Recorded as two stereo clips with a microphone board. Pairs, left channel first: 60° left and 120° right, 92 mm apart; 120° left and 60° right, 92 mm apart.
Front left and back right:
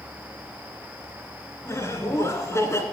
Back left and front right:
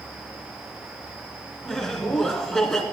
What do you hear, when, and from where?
1.6 s laughter: 40° left, 1.8 m